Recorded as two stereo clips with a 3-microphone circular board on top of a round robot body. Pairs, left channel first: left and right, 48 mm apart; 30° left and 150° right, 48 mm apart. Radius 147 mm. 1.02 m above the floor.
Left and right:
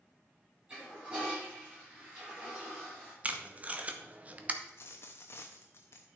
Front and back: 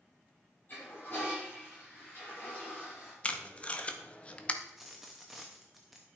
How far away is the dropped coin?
About 0.6 m.